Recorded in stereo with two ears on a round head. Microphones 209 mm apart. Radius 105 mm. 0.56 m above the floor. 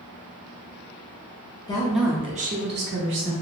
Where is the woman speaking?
15° left (ahead or behind), 0.7 m; by 3.3 s 55° right (ahead or behind), 1.4 m.